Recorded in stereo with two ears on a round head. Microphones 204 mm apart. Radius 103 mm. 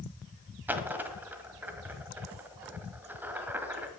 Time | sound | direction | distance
0.7 | a dropped coin | 10° right (ahead or behind) | 1.5 m